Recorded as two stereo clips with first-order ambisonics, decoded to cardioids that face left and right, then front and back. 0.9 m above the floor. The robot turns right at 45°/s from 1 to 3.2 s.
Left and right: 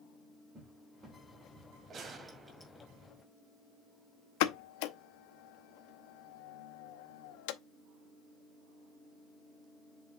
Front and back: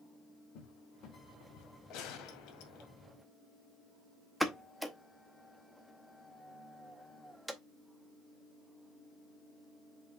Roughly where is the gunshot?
Ahead right.